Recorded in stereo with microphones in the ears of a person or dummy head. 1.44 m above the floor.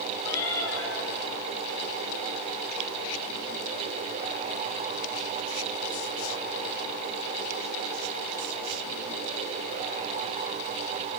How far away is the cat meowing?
About 7.5 m.